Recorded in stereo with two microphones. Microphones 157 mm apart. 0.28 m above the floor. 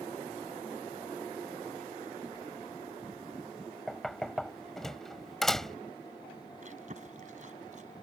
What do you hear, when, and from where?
3.9 s knocking: centre (ahead or behind)
6.6 s chewing: 55° right (ahead or behind)